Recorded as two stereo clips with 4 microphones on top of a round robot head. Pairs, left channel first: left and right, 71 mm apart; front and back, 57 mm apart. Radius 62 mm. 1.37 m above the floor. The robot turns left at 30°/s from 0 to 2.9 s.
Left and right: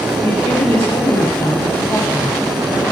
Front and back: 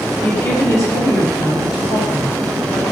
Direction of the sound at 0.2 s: 50° left.